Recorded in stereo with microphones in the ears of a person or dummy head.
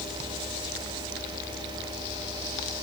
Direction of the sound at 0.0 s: 30° right (ahead or behind).